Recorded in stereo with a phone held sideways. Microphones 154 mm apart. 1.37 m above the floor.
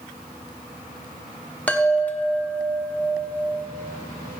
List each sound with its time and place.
1.7 s a chime: 10° left (ahead or behind), 0.8 m